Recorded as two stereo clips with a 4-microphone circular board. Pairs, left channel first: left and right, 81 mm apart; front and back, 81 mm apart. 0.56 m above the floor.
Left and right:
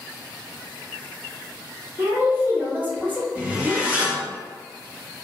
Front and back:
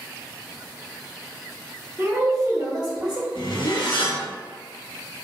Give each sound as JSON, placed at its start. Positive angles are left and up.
{"t": 2.0, "sound": "a woman speaking", "azimuth_deg": -135, "distance_m": 0.7}
{"t": 3.4, "sound": "a zipper", "azimuth_deg": -20, "distance_m": 0.8}